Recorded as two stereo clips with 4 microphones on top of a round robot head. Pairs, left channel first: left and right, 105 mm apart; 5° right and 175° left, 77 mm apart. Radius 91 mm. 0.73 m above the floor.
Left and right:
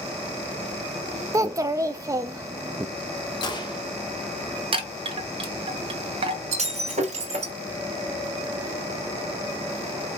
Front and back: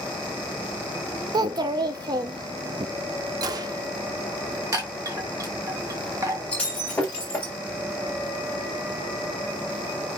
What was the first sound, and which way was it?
A child speaking, 150° right.